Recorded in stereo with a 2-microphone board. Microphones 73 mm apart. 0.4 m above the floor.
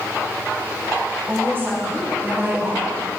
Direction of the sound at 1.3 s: 30° right (ahead or behind).